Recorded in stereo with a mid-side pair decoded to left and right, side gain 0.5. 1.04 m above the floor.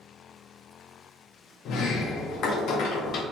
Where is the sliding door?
70° left, 0.9 m.